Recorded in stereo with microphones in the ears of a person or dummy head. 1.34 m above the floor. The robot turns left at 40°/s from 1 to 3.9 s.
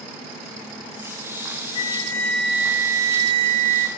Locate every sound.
1.8 s a flute: 30° left, 1.0 m; by 3.9 s 55° right, 1.0 m